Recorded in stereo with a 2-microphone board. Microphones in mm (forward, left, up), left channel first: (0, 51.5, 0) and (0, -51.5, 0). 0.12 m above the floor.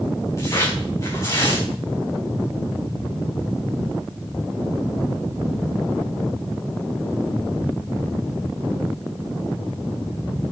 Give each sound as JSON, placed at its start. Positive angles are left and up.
{"t": 0.4, "sound": "tearing paper", "side_deg": 30, "distance_m": 6.0}